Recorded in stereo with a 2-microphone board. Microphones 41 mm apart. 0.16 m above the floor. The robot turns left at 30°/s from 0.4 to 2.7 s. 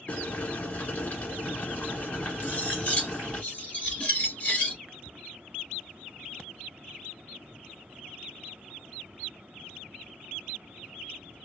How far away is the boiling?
About 1.5 m.